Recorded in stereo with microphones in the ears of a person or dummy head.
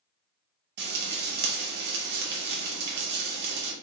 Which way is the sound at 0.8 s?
45° right (ahead or behind).